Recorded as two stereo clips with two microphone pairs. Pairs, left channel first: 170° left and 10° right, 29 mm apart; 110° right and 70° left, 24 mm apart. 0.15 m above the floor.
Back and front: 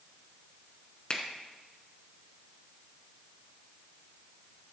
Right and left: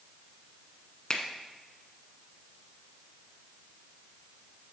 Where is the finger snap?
150° right, 1.0 m.